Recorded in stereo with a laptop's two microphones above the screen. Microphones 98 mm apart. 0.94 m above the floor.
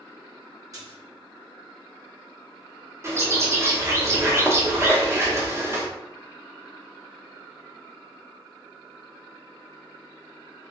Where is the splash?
35° right (ahead or behind), 1.4 m.